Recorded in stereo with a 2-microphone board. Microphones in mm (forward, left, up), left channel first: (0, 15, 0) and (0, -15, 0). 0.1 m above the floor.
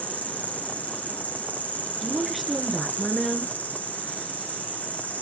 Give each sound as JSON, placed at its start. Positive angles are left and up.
{"t": 0.0, "sound": "an insect", "side_deg": 65, "distance_m": 1.8}
{"t": 2.0, "sound": "a woman speaking", "side_deg": 0, "distance_m": 1.1}